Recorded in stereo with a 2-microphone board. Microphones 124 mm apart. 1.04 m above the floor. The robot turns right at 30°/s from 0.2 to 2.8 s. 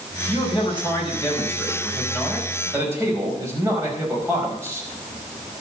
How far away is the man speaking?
About 5 m.